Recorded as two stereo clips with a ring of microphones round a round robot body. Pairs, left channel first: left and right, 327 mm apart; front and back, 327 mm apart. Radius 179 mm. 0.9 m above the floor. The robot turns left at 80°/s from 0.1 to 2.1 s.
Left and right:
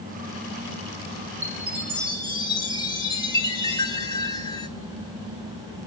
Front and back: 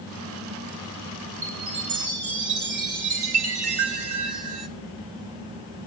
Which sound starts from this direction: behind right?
A chime, at 1.4 s.